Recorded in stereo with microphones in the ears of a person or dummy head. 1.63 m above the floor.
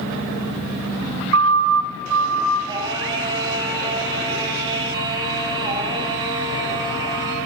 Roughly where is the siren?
Right.